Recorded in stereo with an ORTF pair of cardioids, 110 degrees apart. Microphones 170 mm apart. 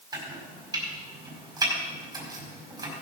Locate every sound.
0.1 s chopping: 20° right, 5 m